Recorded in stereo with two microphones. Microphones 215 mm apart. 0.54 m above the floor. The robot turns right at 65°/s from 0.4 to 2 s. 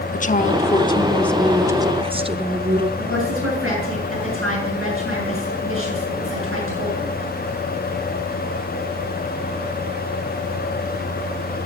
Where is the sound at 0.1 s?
115° left, 0.8 m; by 2.9 s 140° right, 0.8 m.